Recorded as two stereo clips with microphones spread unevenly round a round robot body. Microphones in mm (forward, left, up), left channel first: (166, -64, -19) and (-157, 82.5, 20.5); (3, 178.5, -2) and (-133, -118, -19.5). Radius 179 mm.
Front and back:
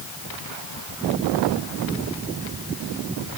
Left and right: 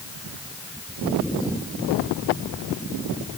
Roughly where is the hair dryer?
No hair dryer in this recording.